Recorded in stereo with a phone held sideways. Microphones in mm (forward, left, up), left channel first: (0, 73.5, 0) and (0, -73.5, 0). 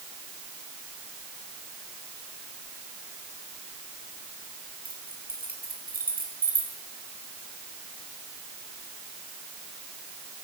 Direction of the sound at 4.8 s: 85° right.